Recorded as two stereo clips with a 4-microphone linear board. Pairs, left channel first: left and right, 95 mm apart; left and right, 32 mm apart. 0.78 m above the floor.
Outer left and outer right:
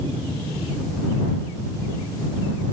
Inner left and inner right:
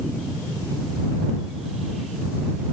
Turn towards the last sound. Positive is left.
No sound to turn to.